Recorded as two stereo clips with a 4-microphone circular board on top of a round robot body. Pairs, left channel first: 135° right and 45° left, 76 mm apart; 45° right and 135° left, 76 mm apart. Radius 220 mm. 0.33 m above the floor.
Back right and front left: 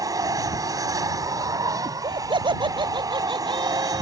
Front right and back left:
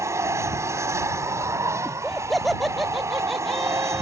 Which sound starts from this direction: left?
An aircraft, at 0.0 s.